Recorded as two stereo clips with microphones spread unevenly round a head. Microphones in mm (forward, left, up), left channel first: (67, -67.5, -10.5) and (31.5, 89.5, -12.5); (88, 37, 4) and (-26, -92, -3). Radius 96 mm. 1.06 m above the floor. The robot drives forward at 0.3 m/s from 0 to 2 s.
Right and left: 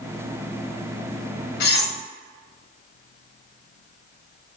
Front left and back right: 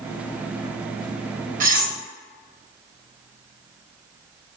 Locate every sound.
1.6 s cutlery clinking: 90° right, 0.6 m; by 2.0 s 100° right, 0.6 m